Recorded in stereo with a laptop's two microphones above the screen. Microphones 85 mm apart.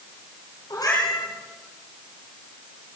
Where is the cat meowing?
45° left (ahead or behind), 6.5 m.